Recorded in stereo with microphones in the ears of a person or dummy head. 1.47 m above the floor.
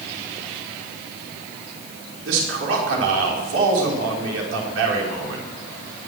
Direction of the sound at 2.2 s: 90° right.